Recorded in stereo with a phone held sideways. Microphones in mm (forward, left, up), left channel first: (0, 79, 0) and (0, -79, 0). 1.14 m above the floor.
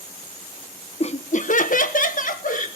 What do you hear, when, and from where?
1.0 s laughter: 40° left (ahead or behind), 0.9 m; by 2.7 s 55° left (ahead or behind), 2.0 m